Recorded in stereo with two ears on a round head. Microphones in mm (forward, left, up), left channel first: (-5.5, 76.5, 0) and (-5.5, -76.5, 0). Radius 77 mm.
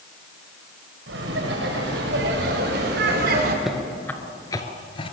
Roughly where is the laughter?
Right.